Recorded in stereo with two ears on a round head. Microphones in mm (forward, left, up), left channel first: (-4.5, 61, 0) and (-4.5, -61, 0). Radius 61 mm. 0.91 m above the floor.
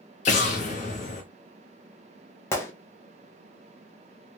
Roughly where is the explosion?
Left.